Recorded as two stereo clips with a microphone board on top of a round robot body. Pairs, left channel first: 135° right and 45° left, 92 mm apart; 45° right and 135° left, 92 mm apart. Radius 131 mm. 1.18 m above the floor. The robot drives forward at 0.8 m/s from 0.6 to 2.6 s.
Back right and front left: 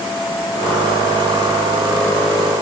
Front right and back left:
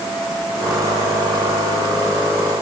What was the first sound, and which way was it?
Only background noise.